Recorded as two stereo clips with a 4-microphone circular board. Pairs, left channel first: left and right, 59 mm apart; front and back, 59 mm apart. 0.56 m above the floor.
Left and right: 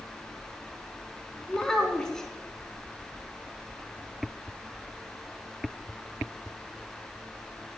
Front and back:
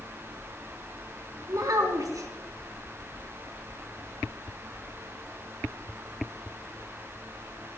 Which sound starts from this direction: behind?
A child speaking, at 1.5 s.